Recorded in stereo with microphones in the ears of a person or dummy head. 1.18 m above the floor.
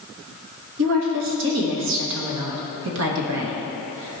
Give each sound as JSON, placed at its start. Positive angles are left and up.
{"t": 0.8, "sound": "a woman speaking", "side_deg": -60, "distance_m": 1.4}